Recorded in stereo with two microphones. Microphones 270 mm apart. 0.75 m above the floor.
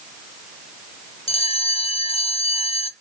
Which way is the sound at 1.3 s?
20° left (ahead or behind).